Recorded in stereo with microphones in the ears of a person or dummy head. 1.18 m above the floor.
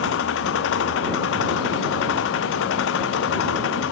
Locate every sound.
0.0 s an engine running: 80° left